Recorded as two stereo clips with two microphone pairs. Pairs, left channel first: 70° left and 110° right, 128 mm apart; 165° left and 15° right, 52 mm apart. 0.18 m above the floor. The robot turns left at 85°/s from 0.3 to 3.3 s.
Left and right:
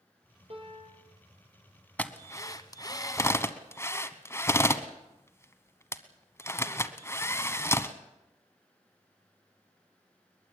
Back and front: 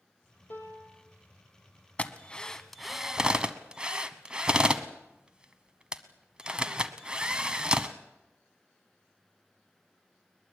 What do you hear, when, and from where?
0.5 s a piano: 150° right, 4 m; by 1.1 s 165° left, 4 m
2.0 s a drill: 140° left, 1.1 m; by 7.9 s 25° left, 1.1 m